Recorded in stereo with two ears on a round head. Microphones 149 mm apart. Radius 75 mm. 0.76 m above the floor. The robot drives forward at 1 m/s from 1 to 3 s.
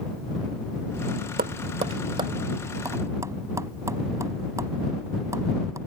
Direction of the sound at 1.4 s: 55° right (ahead or behind).